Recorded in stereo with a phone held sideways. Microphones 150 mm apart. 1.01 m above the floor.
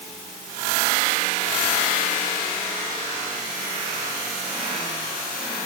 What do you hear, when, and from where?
Only background noise.